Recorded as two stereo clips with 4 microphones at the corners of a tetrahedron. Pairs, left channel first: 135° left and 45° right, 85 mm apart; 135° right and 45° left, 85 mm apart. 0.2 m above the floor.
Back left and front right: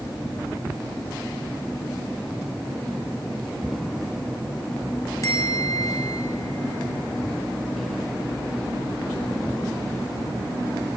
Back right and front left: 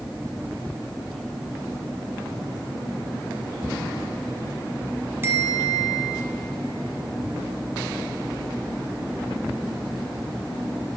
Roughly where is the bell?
Left.